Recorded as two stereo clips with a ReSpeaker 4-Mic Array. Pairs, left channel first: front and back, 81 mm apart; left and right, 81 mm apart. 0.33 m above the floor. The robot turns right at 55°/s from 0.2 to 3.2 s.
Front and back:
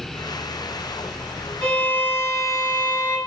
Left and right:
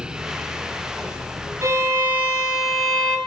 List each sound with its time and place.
1.6 s a violin: 70° right, 1.8 m; by 3.2 s 15° left, 1.8 m